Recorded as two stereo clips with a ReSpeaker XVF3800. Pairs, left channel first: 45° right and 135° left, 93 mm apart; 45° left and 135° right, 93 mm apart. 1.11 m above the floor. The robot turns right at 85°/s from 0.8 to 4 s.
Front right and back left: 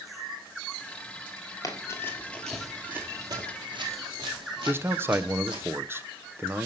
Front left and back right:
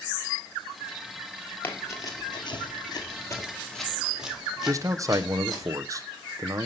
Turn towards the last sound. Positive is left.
turn(degrees=-170)